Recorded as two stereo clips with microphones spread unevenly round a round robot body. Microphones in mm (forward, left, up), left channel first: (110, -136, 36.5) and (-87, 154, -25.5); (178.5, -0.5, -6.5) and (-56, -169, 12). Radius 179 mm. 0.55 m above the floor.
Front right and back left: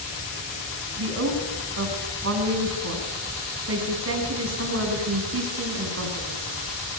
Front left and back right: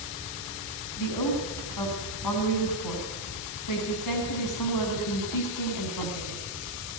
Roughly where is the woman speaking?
Left.